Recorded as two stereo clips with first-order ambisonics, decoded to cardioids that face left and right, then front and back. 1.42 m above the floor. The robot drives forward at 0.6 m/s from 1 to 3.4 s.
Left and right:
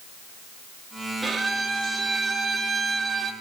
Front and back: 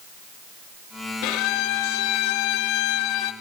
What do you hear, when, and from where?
1.2 s a violin: 10° right, 3 m; by 3.3 s 20° right, 1.7 m